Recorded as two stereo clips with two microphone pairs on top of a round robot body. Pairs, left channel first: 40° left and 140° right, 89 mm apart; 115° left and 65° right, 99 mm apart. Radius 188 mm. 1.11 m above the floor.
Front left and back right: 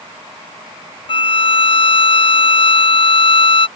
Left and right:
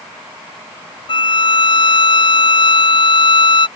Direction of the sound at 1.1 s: 70° left.